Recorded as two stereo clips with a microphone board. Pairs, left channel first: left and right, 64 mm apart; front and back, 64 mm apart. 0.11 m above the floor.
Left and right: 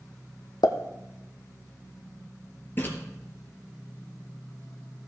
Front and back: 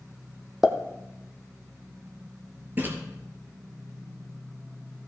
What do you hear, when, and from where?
0.6 s a pop: 100° left, 1.2 m
2.8 s a splash: 135° left, 2.5 m